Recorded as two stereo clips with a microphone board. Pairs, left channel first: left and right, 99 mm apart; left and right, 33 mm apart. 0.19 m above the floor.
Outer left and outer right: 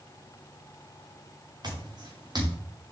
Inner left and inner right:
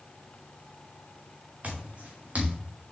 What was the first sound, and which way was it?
Footsteps, 45° right (ahead or behind).